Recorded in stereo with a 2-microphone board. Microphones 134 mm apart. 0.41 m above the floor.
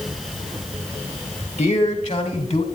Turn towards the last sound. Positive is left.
turn(degrees=55)  # may be behind; listen again after turning